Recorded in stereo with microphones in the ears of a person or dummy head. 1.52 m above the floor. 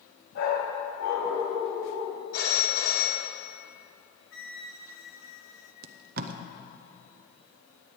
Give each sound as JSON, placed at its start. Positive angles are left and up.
{"t": 0.3, "sound": "a dog barking", "side_deg": 75, "distance_m": 4.0}
{"t": 2.3, "sound": "a phone ringing", "side_deg": 65, "distance_m": 1.8}
{"t": 4.3, "sound": "a flute", "side_deg": 60, "distance_m": 0.9}
{"t": 5.8, "sound": "tape being pulled", "side_deg": -50, "distance_m": 0.6}